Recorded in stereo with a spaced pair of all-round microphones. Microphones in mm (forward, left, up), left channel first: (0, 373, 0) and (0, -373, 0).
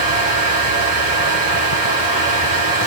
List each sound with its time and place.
0.0 s a fan: 85° right, 3.5 m